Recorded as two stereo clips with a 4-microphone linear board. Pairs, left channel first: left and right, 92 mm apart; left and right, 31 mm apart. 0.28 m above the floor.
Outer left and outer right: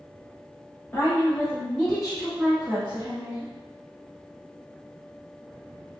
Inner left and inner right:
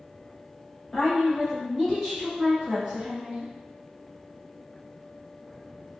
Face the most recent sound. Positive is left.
turn(degrees=-35)  # may be behind; listen again after turning